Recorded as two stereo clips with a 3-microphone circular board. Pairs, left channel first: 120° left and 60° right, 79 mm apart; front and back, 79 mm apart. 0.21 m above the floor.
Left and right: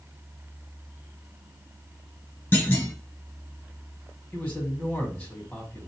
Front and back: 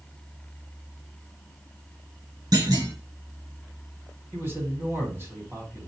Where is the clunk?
Straight behind, 1.7 m.